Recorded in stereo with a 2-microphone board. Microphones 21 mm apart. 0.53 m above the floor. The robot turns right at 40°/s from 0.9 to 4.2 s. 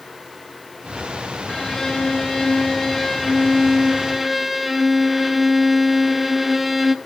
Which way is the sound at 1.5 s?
20° left (ahead or behind).